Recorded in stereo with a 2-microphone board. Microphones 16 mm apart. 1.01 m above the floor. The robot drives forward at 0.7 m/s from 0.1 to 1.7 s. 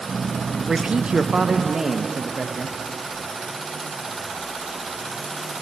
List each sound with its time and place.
0.7 s a man speaking: 55° right (ahead or behind), 0.5 m; by 2.8 s 40° right (ahead or behind), 0.7 m